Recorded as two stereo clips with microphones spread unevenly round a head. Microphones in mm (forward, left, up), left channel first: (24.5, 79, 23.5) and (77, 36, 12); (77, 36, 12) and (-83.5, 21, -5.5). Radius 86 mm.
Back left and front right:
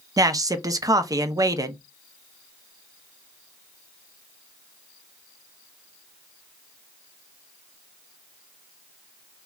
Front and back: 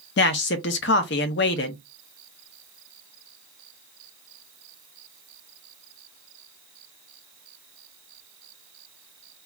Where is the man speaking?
15° right, 0.5 m.